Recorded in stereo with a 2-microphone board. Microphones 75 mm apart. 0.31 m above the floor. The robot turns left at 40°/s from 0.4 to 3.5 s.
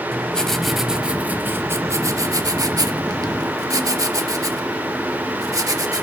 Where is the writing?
10° left, 0.8 m; by 6.0 s 115° right, 0.8 m.